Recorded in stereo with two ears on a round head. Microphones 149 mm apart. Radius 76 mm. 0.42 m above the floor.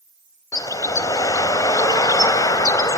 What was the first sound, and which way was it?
A bird, 20° left (ahead or behind).